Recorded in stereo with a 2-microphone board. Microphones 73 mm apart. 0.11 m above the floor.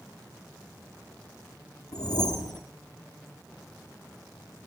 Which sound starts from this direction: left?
A whoosh, at 1.9 s.